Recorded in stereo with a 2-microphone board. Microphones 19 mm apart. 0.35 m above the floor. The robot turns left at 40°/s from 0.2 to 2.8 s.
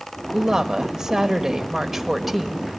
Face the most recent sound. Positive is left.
turn(degrees=165)